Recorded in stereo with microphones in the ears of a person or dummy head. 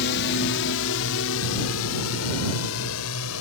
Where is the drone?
55° left (ahead or behind); by 3.4 s 80° left.